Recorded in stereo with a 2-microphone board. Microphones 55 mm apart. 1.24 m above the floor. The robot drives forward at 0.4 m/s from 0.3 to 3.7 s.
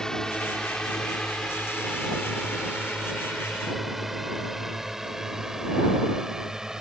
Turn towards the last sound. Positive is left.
turn(degrees=-10)  # may be behind; listen again after turning